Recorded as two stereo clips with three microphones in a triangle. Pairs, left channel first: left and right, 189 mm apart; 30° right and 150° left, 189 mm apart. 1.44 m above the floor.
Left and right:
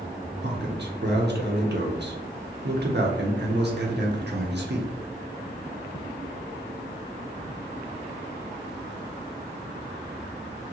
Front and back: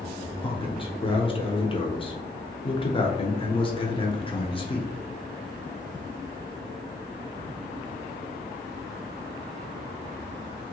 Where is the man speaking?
90° right, 0.8 m.